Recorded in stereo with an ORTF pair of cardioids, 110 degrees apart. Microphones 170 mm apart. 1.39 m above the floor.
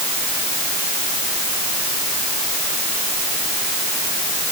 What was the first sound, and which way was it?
Only background noise.